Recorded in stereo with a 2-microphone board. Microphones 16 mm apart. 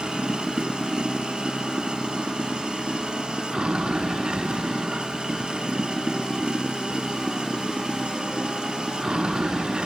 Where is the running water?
85° right.